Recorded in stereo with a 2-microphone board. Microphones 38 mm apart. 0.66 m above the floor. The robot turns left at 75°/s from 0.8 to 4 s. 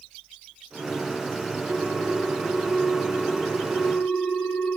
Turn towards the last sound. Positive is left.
turn(degrees=90)